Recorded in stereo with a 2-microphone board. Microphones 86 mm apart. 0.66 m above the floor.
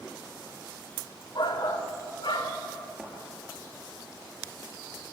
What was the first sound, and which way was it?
A shout, 65° left (ahead or behind).